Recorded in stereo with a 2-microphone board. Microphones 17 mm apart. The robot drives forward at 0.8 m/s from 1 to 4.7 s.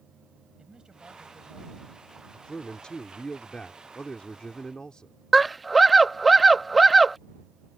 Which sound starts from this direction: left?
A man speaking, at 2.3 s.